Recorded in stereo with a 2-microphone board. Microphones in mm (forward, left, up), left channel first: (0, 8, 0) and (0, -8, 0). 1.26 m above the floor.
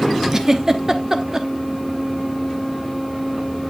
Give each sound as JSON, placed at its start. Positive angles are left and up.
{"t": 0.3, "sound": "a giggle", "side_deg": -40, "distance_m": 0.9}